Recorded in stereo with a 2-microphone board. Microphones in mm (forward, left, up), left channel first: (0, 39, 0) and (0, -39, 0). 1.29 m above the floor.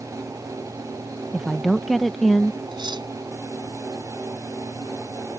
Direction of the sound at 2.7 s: 85° right.